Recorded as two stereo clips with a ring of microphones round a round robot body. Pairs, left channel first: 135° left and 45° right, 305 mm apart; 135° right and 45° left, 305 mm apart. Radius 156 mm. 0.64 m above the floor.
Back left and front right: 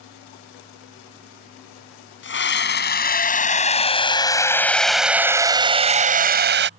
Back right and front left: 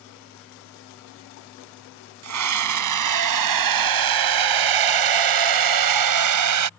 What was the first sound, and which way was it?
A scream, 80° left.